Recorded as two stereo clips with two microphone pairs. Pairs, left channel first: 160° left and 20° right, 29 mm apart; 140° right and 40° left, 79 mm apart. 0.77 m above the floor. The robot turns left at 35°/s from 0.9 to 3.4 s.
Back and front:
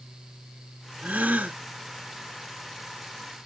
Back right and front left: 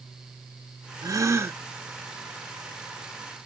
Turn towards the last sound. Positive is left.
turn(degrees=-85)